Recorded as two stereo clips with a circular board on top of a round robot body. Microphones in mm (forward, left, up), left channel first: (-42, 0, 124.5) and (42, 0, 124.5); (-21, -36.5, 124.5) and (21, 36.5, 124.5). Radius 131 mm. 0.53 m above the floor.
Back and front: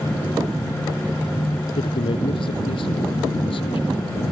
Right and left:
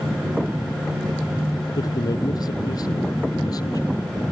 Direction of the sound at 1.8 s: 165° right.